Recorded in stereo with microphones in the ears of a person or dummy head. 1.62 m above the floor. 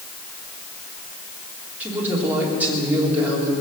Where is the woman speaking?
10° right (ahead or behind), 3.5 m.